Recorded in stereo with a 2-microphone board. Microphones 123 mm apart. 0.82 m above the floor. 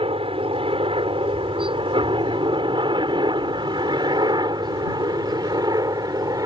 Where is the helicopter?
50° right (ahead or behind); by 6.5 s 30° right (ahead or behind).